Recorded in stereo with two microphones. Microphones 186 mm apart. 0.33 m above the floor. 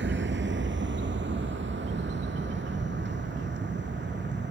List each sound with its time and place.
0.0 s a vehicle: 80° right; by 4.5 s 70° right (ahead or behind)